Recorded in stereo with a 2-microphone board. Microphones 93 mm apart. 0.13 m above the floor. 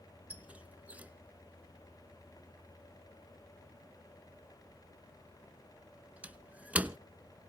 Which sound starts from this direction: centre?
A squeak, at 0.3 s.